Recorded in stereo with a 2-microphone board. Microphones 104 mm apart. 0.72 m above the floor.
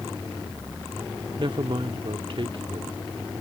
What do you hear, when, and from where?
1.4 s a man speaking: 55° right (ahead or behind)